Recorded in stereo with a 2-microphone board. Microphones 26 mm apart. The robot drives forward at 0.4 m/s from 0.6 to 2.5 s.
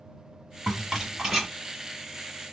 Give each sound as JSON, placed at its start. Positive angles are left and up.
{"t": 0.7, "sound": "a rattle", "side_deg": -20, "distance_m": 1.4}